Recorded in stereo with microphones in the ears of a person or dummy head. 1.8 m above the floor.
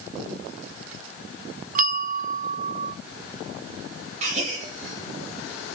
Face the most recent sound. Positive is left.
turn(degrees=-40)  # may be behind; listen again after turning